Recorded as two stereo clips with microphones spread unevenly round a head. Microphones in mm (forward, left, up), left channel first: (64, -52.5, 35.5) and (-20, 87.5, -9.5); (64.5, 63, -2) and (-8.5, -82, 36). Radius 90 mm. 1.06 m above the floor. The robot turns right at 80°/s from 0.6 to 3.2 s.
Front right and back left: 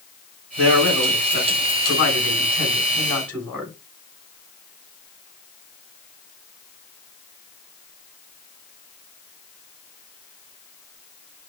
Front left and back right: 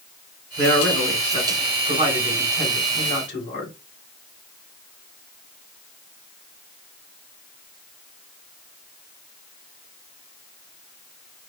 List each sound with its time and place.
0.6 s a man speaking: straight behind, 3.5 m; by 3.7 s 30° left, 3.5 m